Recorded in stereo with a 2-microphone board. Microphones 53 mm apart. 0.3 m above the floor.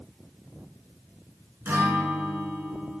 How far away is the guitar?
About 1.7 m.